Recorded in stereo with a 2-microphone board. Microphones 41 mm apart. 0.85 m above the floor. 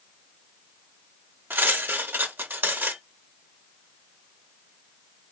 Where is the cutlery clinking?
55° right (ahead or behind), 0.8 m.